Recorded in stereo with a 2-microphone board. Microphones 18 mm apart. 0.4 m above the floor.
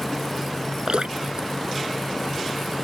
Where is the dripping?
55° right (ahead or behind).